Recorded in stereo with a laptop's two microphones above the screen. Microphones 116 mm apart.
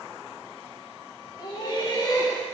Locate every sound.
1.4 s laughter: 40° left (ahead or behind), 1.6 m; by 2.5 s 30° left (ahead or behind), 1.2 m